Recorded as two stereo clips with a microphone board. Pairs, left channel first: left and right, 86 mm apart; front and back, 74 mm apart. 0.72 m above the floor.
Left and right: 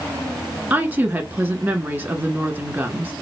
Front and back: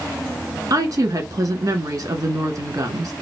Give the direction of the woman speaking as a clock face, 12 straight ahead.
5 o'clock.